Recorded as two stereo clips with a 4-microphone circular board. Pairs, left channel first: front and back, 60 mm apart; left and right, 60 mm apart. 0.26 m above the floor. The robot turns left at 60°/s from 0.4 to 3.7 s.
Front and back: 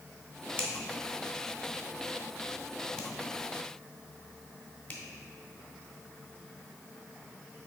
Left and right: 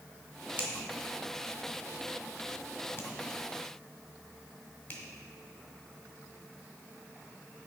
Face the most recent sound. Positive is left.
turn(degrees=40)